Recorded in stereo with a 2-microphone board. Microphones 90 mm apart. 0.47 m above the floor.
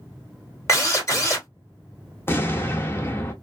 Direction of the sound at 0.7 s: 35° left (ahead or behind).